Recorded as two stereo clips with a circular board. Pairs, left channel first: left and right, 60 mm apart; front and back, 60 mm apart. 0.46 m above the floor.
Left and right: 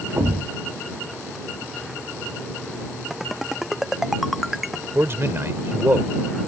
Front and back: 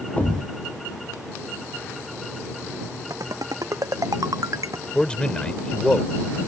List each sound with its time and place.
0.2 s a thud: 60° right
3.1 s a ringtone: 175° right
5.0 s a man speaking: 65° right